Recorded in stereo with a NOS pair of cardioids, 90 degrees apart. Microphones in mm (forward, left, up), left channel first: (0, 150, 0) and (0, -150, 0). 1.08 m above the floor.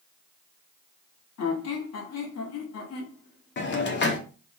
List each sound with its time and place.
1.4 s a squeak: 60° left, 1.3 m
3.6 s a hiss: 40° left, 0.8 m